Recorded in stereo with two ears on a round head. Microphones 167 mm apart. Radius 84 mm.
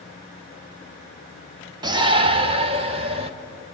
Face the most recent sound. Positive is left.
turn(degrees=-30)  # may be behind; listen again after turning